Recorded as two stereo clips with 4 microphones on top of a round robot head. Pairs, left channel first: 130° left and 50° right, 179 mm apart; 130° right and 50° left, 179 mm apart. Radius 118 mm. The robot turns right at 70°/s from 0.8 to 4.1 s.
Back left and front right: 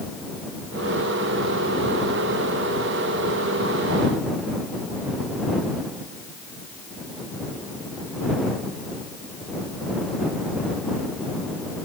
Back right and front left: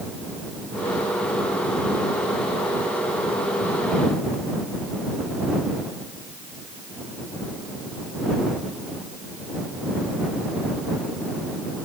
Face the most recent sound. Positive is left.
No sound to turn to.